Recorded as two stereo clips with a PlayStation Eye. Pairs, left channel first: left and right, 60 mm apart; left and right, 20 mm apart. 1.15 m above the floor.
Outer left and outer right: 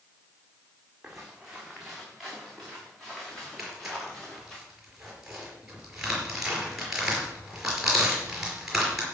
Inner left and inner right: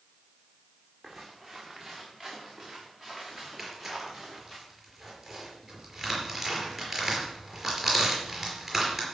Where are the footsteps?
10° right (ahead or behind), 3.5 m; by 4.6 s 5° left (ahead or behind), 7 m.